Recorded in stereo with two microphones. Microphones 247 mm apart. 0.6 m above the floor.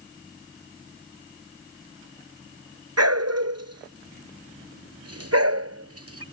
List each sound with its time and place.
3.0 s a dog barking: 85° right; by 6.2 s 70° right (ahead or behind)